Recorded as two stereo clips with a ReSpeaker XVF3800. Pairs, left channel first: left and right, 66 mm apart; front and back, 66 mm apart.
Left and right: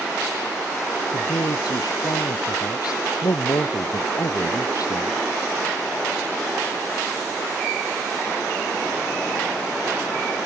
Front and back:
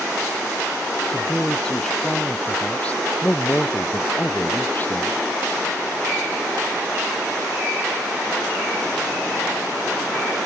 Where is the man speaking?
80° left; by 5.2 s 60° left.